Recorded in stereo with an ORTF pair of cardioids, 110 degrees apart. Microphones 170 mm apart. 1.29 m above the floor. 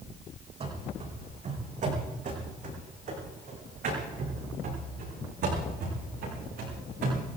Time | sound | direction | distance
0.6 | running footsteps | 40° right | 5 m